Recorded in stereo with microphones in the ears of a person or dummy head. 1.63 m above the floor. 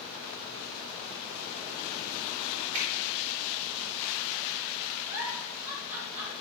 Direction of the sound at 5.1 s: 15° right (ahead or behind).